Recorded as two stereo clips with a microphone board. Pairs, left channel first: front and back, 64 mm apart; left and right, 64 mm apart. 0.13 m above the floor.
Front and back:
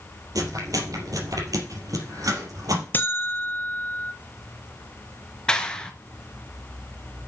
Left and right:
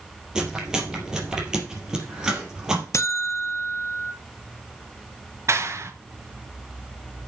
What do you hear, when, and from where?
0.3 s chewing: 170° right, 3.5 m
2.9 s a buzzer: 55° left, 1.2 m
5.5 s a clap: 70° right, 1.3 m